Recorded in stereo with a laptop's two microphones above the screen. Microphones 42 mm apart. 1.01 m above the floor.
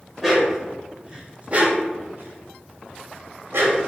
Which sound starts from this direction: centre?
A dog barking, at 0.2 s.